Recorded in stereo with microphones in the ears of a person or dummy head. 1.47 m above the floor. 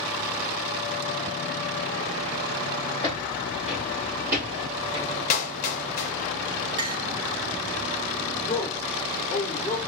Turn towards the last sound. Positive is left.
turn(degrees=15)  # may be behind; listen again after turning